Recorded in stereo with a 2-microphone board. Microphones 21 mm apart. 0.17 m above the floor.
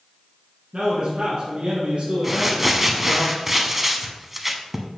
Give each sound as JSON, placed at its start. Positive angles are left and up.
{"t": 0.7, "sound": "a man speaking", "side_deg": -45, "distance_m": 1.9}
{"t": 2.2, "sound": "crumpling", "side_deg": -10, "distance_m": 0.8}